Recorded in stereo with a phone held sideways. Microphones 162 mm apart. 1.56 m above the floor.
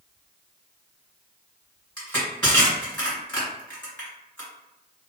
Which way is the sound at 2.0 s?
15° left (ahead or behind).